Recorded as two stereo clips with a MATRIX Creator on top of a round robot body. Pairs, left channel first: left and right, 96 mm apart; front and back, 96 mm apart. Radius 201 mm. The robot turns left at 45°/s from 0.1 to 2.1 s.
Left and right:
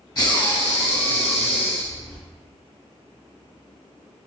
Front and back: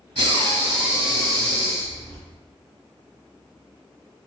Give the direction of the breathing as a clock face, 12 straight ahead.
7 o'clock.